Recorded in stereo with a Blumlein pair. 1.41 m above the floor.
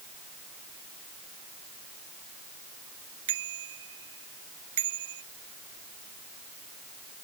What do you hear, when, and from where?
3.3 s a bicycle bell: 55° right